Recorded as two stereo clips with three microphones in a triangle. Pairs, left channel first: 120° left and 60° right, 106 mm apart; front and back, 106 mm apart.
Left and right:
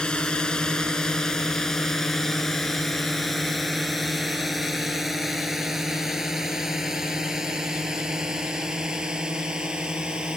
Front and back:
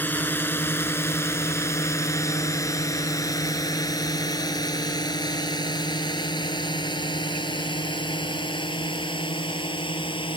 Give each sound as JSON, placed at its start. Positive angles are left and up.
{"t": 0.0, "sound": "a drone", "azimuth_deg": 50}